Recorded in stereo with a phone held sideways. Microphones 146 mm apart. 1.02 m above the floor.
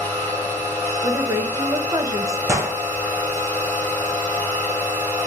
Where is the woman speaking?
25° right (ahead or behind), 0.7 m.